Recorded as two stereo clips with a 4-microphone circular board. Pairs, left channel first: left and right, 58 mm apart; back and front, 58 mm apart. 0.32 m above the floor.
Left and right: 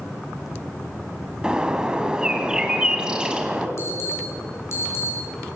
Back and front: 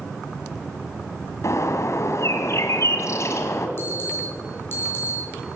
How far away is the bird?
About 2.0 m.